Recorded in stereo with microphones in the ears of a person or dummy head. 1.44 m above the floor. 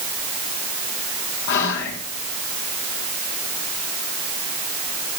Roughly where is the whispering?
Left.